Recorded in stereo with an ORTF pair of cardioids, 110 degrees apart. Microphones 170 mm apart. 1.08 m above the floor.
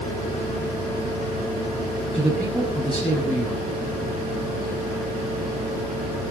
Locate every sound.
2.1 s a man speaking: straight ahead, 6.5 m